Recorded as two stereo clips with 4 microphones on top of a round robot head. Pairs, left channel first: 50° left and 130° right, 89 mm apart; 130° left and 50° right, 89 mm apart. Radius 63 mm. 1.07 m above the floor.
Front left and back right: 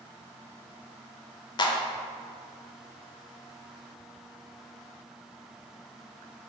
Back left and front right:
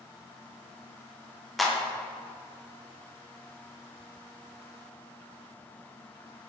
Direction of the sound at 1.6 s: 40° left.